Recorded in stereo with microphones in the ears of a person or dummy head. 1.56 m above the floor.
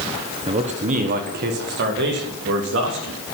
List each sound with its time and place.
0.5 s a man speaking: 25° right (ahead or behind), 1.2 m; by 3.2 s 65° right (ahead or behind), 4 m